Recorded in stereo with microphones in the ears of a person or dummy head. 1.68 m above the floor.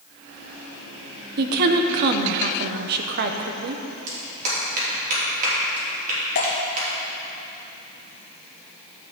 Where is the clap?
45° right (ahead or behind), 3 m.